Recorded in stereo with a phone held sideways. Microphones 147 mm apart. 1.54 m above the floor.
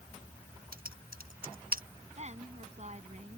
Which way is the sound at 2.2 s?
50° right (ahead or behind).